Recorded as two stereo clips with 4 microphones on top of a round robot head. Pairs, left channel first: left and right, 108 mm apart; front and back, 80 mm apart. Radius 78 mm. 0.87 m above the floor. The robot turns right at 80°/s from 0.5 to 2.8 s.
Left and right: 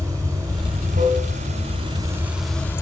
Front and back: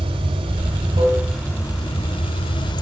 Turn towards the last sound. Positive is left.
turn(degrees=25)